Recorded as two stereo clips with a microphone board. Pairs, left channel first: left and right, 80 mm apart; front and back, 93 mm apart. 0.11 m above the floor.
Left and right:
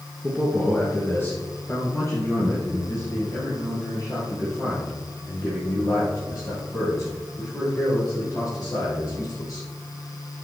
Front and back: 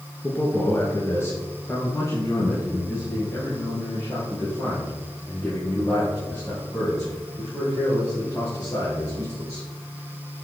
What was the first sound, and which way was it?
A man speaking, 30° left.